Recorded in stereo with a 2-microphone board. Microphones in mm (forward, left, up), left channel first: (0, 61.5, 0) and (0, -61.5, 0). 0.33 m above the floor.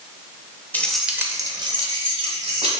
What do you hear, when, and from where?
0.7 s keys jangling: 15° left (ahead or behind), 0.5 m; by 2.8 s 50° right (ahead or behind), 1.4 m